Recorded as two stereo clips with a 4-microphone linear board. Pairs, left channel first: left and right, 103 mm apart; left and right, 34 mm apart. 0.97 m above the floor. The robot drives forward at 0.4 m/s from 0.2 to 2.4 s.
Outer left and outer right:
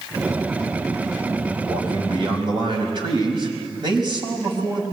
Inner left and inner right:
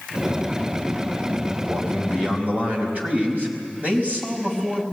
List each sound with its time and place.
1.6 s a man speaking: 55° right (ahead or behind), 4.5 m; by 4.8 s 50° right (ahead or behind), 5 m